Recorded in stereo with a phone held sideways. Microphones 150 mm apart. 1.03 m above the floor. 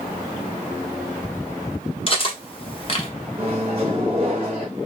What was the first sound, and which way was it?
Cutlery clinking, 35° left (ahead or behind).